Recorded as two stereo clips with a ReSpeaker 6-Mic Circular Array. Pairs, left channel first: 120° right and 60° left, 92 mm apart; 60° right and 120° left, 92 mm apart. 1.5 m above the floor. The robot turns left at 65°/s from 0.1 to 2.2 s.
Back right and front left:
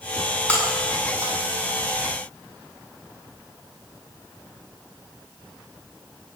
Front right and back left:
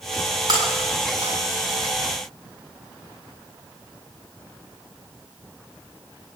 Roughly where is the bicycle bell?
No bicycle bell in this recording.